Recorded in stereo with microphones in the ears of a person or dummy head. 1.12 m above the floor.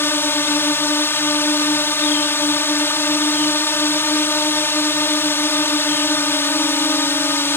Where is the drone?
10° left (ahead or behind).